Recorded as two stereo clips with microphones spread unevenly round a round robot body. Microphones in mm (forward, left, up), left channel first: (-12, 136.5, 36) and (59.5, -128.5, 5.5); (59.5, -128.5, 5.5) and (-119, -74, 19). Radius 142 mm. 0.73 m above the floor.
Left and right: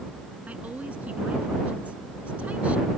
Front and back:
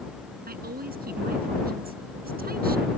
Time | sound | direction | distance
0.5 | a woman speaking | 160° right | ?